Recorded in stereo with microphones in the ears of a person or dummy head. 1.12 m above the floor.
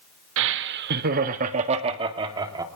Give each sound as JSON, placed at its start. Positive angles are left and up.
{"t": 0.4, "sound": "laughter", "side_deg": -70, "distance_m": 1.5}